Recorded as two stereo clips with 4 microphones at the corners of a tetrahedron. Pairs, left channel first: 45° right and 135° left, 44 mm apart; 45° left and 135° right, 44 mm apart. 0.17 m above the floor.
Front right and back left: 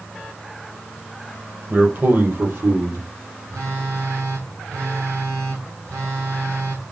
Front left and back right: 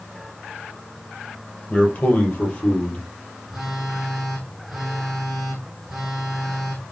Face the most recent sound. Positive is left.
turn(degrees=135)